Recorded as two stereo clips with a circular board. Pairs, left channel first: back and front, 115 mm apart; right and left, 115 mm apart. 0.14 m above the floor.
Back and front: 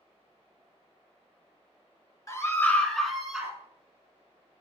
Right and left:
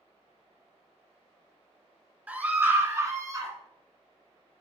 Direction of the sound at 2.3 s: 155° left.